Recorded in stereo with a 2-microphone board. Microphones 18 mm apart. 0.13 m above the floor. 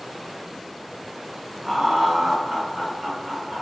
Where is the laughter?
20° right (ahead or behind), 1.2 m; by 3.6 s 30° right (ahead or behind), 1.5 m.